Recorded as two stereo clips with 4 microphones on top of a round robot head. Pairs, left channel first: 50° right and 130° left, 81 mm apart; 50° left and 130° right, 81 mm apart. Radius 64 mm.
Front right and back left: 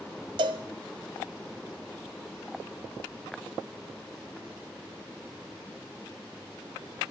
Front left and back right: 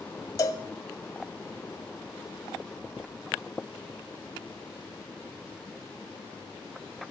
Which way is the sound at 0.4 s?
100° left.